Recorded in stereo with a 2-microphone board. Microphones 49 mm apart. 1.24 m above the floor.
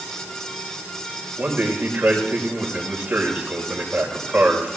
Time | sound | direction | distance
1.4 | a man speaking | 25° right (ahead or behind) | 6 m